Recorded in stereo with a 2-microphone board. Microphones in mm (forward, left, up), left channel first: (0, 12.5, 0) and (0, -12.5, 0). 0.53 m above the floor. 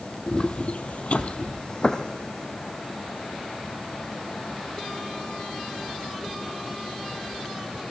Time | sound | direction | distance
0.3 | footsteps | 35° left (ahead or behind) | 1.3 m